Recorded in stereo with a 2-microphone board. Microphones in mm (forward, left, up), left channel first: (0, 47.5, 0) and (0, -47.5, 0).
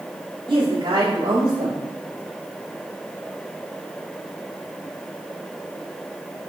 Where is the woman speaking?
65° right (ahead or behind), 2.5 m.